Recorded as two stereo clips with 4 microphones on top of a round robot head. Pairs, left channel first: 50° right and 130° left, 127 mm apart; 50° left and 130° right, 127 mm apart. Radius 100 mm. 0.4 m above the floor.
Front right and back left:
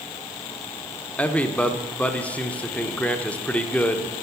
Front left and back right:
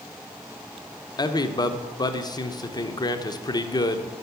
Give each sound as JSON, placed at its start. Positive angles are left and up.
{"t": 1.2, "sound": "a man speaking", "azimuth_deg": 25, "distance_m": 0.9}